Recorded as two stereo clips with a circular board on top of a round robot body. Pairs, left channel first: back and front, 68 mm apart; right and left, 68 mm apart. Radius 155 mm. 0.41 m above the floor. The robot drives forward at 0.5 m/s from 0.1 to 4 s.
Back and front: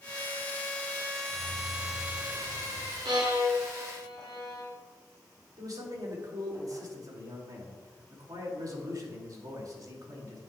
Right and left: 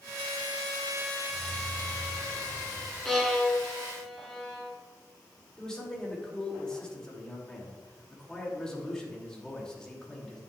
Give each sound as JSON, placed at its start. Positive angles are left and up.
{"t": 1.3, "sound": "keys jangling", "azimuth_deg": 60, "distance_m": 2.5}
{"t": 3.0, "sound": "a violin", "azimuth_deg": -5, "distance_m": 2.0}
{"t": 5.6, "sound": "a man speaking", "azimuth_deg": -10, "distance_m": 3.0}